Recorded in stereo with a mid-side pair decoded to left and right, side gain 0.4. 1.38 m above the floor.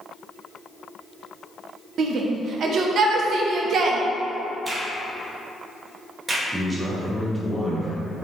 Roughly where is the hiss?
I don't hear a hiss.